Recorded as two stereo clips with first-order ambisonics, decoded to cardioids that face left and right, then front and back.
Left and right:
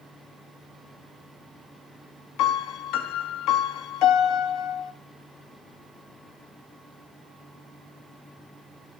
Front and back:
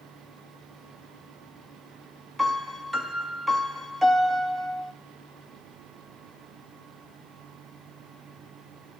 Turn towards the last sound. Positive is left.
turn(degrees=90)